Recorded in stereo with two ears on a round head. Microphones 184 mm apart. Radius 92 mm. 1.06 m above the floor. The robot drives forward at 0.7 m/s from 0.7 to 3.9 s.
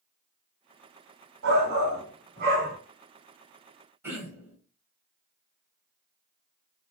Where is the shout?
70° right (ahead or behind), 1.7 m; by 2.8 s 45° right (ahead or behind), 2 m.